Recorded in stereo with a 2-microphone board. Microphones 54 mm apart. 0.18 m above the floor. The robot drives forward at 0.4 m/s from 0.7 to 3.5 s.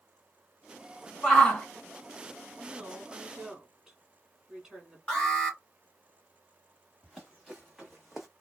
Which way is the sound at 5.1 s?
15° left (ahead or behind).